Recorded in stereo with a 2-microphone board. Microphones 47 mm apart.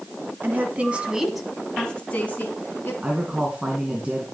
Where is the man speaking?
20° right (ahead or behind), 2.5 m.